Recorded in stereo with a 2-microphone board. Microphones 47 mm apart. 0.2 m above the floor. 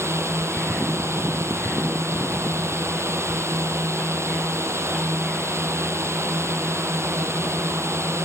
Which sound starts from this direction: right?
A drone, at 0.0 s.